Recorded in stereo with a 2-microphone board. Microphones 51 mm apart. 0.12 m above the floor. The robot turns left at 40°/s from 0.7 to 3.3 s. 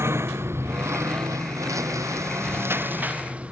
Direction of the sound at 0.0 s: 55° right (ahead or behind).